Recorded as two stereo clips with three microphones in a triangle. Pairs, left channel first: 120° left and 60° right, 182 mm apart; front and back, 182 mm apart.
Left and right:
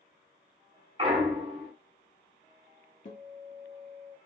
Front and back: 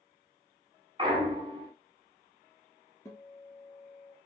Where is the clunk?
115° right, 0.8 m.